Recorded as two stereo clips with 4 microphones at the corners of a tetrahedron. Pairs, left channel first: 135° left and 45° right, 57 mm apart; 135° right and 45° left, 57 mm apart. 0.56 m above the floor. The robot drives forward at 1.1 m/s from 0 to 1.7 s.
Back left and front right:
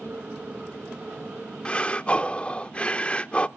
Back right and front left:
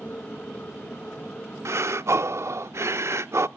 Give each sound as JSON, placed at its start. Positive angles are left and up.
{"t": 1.6, "sound": "breathing", "azimuth_deg": 65, "distance_m": 0.5}